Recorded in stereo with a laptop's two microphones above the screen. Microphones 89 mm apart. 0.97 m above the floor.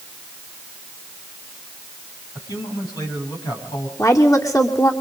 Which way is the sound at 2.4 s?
45° left (ahead or behind).